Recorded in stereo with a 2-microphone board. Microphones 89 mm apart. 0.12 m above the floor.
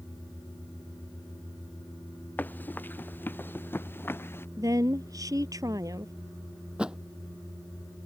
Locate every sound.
2.4 s running footsteps: 20° left (ahead or behind); by 4.5 s 25° left (ahead or behind)
4.6 s a woman speaking: 40° right (ahead or behind)
6.8 s a thud: 10° right (ahead or behind)